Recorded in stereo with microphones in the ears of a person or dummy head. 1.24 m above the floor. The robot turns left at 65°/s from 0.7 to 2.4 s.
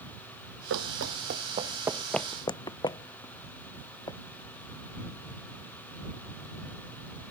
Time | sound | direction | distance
0.7 | running footsteps | 65° right (ahead or behind) | ?